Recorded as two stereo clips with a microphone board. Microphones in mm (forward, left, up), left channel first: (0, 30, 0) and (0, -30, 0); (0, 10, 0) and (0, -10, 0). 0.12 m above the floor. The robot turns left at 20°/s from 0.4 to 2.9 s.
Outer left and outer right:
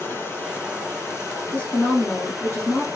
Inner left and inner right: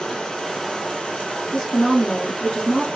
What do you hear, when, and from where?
0.0 s running water: 130° left, 1.4 m; by 3.0 s 80° left, 1.4 m
1.5 s a woman speaking: 25° left (ahead or behind), 1.8 m; by 2.9 s 30° left (ahead or behind), 1.8 m